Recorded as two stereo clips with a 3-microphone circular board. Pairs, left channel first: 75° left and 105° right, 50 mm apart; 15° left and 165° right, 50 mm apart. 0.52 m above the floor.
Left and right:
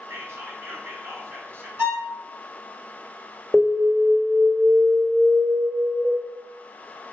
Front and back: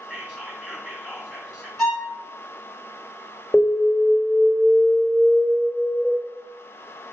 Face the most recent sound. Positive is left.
turn(degrees=-45)